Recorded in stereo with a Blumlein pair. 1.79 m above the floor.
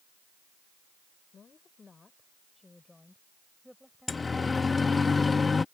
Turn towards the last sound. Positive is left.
turn(degrees=15)